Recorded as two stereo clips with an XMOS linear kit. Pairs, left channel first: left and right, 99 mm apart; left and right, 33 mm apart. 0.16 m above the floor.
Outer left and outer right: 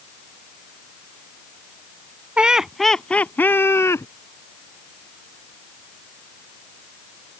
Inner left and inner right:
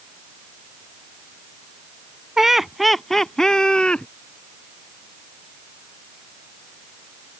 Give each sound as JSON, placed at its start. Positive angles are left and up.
{"t": 2.4, "sound": "laughter", "side_deg": -10}